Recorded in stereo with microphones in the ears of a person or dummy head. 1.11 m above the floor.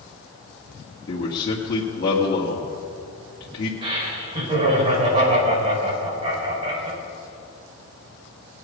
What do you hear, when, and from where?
1.1 s a man speaking: 45° left (ahead or behind), 1.8 m
3.8 s laughter: 35° right (ahead or behind), 6 m